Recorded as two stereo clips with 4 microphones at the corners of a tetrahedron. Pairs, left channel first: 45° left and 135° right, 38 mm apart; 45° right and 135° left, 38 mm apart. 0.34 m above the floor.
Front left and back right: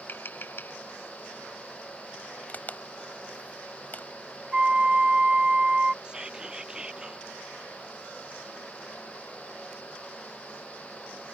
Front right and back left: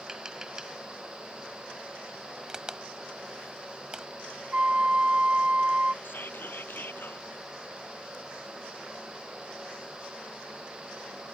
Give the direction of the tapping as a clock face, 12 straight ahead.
10 o'clock.